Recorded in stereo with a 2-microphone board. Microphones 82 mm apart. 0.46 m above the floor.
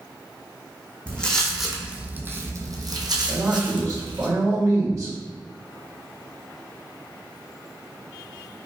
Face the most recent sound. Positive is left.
turn(degrees=-45)  # may be behind; listen again after turning